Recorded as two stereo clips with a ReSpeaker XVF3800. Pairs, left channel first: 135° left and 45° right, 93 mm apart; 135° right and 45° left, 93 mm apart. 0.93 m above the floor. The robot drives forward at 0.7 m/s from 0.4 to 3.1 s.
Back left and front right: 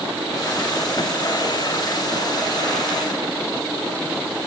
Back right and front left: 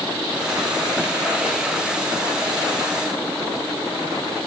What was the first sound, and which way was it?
Only background noise.